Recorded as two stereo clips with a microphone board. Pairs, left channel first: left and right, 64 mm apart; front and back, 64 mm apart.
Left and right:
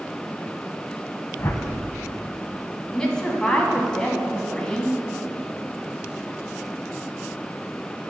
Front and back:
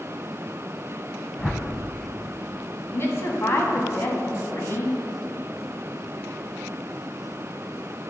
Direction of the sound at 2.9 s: 15° left.